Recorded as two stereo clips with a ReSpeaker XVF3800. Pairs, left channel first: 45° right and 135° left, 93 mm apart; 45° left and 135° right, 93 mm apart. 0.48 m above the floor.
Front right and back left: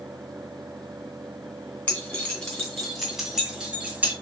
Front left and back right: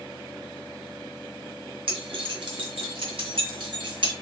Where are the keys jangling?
120° right, 2.5 m; by 4.1 s 155° right, 1.9 m.